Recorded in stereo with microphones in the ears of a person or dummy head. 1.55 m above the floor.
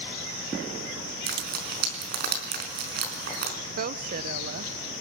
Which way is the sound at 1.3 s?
50° right (ahead or behind).